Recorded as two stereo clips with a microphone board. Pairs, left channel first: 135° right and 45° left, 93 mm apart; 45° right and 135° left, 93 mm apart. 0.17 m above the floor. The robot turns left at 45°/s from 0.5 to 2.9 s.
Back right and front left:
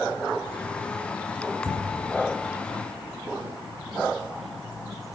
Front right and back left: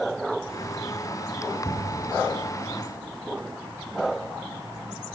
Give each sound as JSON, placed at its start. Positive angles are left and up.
{"t": 1.6, "sound": "an explosion", "azimuth_deg": 10, "distance_m": 2.0}